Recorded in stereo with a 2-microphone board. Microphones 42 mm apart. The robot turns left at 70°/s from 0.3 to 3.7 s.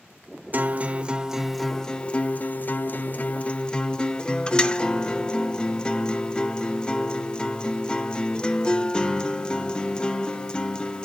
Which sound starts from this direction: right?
A guitar, at 0.5 s.